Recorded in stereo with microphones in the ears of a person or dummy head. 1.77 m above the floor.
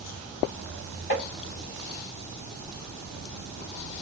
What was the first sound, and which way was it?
Tapping, 55° left (ahead or behind).